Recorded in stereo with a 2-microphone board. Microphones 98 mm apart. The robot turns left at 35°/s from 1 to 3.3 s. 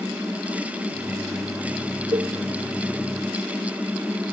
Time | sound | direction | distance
2.1 | a cowbell | 70° right (ahead or behind) | 0.8 m